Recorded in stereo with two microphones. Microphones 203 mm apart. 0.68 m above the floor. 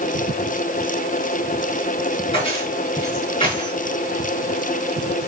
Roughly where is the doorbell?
No doorbell in this recording.